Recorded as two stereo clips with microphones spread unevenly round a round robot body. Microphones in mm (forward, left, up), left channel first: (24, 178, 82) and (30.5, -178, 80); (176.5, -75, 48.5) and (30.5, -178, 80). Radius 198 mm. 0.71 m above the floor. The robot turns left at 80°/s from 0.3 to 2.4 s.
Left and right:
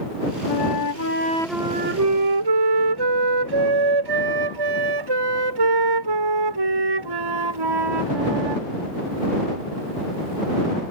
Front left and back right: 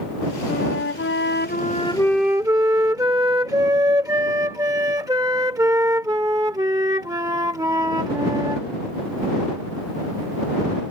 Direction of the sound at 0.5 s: 85° left.